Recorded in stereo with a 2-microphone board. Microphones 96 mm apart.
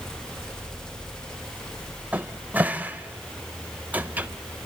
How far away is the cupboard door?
About 0.7 m.